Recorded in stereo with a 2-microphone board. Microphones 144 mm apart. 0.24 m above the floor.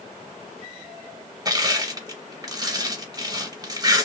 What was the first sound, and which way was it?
Crushing, 25° right (ahead or behind).